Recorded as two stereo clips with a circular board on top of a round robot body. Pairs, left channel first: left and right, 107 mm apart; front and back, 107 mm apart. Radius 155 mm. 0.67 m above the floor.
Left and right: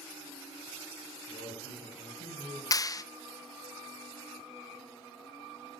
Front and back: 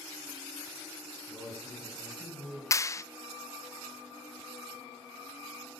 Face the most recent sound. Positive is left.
turn(degrees=50)